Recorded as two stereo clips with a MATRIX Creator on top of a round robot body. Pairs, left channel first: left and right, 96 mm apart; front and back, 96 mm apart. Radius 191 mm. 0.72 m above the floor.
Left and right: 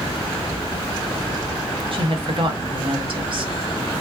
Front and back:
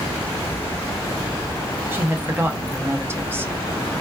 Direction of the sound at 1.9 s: 115° right.